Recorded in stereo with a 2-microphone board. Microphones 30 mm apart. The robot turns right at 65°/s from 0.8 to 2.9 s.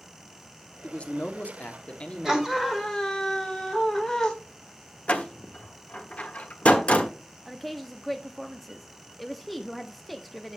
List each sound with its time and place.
0.8 s a man speaking: 50° left, 1.2 m; by 2.4 s 155° left, 1.2 m
2.2 s a scream: 25° right, 2 m; by 4.3 s 20° left, 2 m
5.1 s a door slam: 50° left (ahead or behind), 1.1 m
7.5 s a woman speaking: 5° left (ahead or behind), 0.7 m